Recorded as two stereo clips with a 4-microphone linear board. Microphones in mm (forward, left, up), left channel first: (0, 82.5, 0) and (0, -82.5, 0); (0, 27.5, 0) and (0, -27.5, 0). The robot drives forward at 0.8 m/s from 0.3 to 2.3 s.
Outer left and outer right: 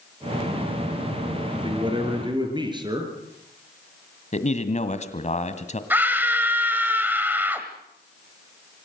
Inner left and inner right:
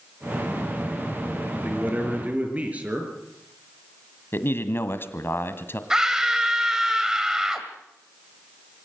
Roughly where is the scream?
Centre.